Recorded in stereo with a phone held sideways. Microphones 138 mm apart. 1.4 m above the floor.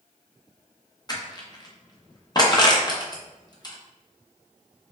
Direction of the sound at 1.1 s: 30° left (ahead or behind).